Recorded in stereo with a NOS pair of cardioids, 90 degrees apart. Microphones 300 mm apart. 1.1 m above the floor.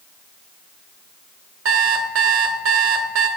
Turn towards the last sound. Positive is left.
turn(degrees=-45)